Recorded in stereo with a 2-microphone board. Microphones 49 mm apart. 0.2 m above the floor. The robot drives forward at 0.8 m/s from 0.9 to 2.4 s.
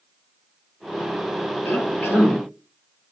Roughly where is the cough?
Left.